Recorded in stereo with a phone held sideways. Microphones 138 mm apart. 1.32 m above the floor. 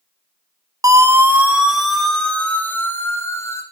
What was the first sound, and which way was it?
A siren, 25° right (ahead or behind).